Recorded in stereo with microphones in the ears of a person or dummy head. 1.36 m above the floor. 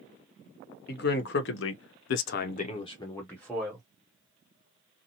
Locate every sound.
0.9 s a man speaking: 55° left (ahead or behind), 1.0 m; by 3.9 s centre (ahead or behind), 1.0 m